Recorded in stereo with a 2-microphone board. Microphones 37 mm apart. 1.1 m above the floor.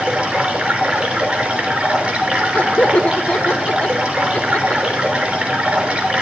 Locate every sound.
0.0 s running water: 25° right (ahead or behind), 5.5 m
2.5 s laughter: 60° left (ahead or behind), 1.4 m